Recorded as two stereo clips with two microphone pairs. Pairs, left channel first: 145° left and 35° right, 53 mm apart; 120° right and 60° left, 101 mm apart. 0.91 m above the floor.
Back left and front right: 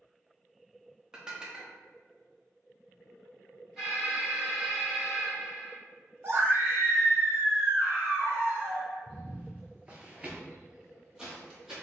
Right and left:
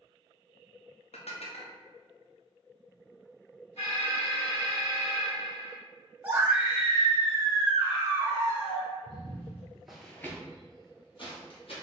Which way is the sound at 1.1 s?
110° right.